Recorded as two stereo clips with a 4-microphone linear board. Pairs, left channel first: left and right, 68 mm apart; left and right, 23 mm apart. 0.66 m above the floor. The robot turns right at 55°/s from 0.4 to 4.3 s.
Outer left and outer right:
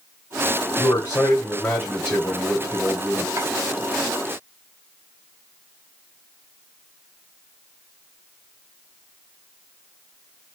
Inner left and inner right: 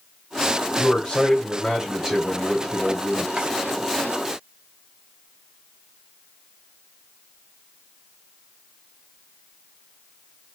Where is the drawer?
45° right (ahead or behind), 2.5 m; by 3.5 s 40° right (ahead or behind), 2.5 m.